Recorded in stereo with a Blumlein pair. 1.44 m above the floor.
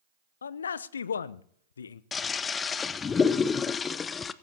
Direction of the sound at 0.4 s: 65° left.